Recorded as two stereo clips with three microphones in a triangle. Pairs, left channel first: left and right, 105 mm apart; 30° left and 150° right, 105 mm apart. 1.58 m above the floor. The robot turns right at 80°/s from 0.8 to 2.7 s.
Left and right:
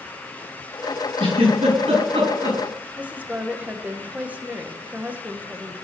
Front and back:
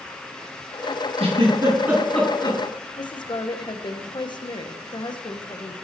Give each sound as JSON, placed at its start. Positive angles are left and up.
{"t": 1.2, "sound": "a giggle", "azimuth_deg": -130, "distance_m": 6.5}
{"t": 3.0, "sound": "a woman speaking", "azimuth_deg": -15, "distance_m": 1.4}